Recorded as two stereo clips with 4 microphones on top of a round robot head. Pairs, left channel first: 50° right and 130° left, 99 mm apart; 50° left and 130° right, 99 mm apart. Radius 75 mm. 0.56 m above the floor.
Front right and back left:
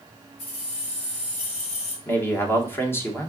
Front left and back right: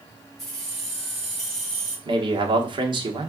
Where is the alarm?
I don't hear an alarm.